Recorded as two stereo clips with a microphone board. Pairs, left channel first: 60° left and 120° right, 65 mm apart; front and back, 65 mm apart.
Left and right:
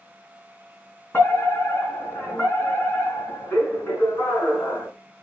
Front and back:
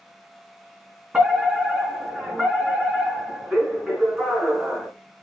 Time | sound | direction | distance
1.1 | a fire alarm | 110° left | 4 m